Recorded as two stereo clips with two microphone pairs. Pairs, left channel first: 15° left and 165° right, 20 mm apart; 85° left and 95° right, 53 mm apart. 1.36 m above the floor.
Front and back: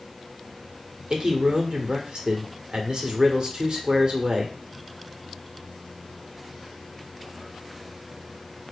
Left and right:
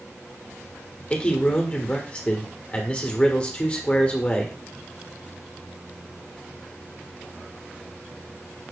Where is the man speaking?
150° left, 0.9 m.